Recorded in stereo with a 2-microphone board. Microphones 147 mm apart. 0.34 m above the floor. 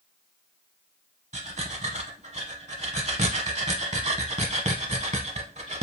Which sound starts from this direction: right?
Breathing, at 1.3 s.